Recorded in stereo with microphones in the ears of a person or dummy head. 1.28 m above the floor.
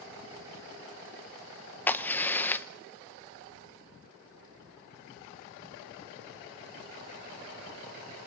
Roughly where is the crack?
Centre.